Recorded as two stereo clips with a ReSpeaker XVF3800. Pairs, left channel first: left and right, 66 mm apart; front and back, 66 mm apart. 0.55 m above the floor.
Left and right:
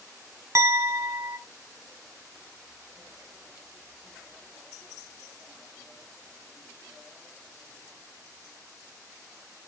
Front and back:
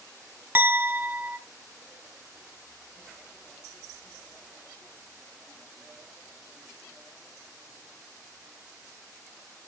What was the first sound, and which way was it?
A clink, 125° right.